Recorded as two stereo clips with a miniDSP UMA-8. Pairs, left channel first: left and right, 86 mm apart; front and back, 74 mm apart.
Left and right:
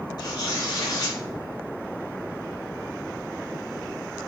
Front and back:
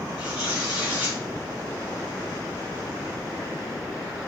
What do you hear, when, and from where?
0.2 s tearing paper: 115° left, 1.4 m